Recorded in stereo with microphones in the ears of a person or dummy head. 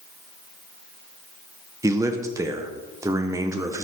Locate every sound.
1.8 s a man speaking: 15° right (ahead or behind), 0.8 m